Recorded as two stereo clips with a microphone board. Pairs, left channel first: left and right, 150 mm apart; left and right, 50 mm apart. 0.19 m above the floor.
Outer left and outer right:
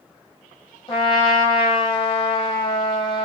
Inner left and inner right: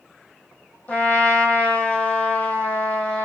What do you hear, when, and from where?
0.9 s a trumpet: 35° left (ahead or behind), 1.7 m